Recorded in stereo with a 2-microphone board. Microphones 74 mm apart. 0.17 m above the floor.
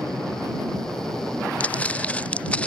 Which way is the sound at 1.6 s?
20° left (ahead or behind).